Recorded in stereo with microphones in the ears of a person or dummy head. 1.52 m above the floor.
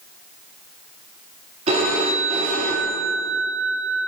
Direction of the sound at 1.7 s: 30° right (ahead or behind).